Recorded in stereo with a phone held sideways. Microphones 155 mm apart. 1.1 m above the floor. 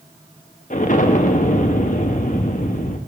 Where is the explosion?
55° left (ahead or behind), 0.7 m.